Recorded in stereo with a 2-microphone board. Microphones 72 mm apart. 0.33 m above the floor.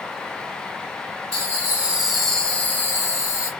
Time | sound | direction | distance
1.3 | laughter | 40° right (ahead or behind) | 1.4 m